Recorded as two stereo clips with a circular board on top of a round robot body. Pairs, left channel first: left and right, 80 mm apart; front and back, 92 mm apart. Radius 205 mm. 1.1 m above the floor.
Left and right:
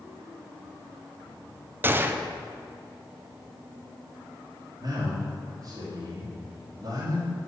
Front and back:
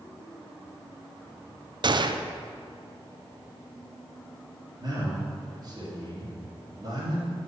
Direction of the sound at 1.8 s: 150° right.